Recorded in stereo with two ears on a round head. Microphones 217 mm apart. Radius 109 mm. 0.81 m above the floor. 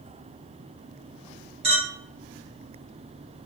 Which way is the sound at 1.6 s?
25° right (ahead or behind).